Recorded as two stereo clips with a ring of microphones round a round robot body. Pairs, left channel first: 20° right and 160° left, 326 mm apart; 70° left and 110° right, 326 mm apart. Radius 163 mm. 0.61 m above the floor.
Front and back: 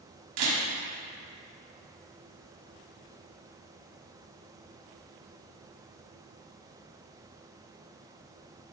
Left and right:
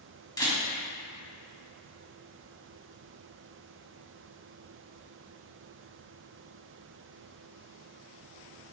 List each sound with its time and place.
0.4 s a camera shutter: 145° left, 2.5 m